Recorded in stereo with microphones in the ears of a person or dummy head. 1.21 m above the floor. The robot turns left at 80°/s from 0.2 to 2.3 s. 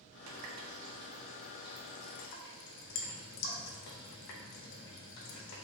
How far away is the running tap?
About 0.6 m.